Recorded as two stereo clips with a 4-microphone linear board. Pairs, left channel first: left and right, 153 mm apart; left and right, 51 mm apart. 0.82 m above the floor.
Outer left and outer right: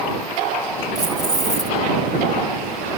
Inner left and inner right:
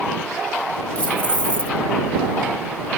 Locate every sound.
0.9 s keys jangling: 25° left (ahead or behind)